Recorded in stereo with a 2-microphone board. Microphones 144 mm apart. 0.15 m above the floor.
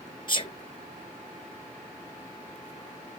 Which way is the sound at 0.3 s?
35° left (ahead or behind).